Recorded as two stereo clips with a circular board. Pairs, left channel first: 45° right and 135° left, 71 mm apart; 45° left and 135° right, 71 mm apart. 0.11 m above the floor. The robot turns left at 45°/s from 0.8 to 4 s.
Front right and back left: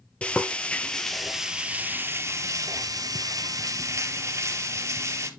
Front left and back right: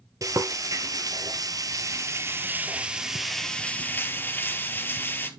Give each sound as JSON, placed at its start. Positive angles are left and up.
{"t": 0.2, "sound": "frying", "azimuth_deg": -115, "distance_m": 1.4}